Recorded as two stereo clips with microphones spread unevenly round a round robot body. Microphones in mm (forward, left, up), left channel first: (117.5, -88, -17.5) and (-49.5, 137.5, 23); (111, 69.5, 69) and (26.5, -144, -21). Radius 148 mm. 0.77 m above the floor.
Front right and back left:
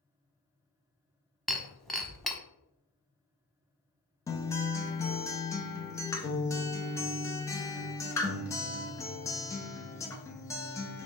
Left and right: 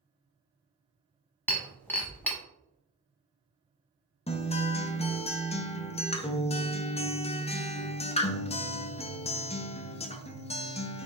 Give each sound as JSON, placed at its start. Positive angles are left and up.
{"t": 1.5, "sound": "breaking glass", "azimuth_deg": 50, "distance_m": 0.7}
{"t": 4.3, "sound": "a guitar", "azimuth_deg": -15, "distance_m": 0.6}